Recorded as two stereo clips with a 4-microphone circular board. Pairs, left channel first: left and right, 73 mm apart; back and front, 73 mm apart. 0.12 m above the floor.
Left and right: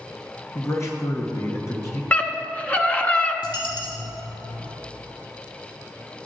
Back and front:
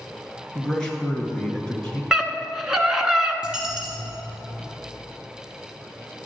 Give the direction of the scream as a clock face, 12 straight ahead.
10 o'clock.